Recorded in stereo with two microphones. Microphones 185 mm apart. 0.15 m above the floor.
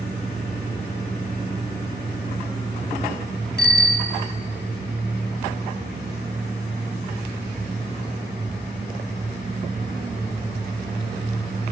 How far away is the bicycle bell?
About 2 m.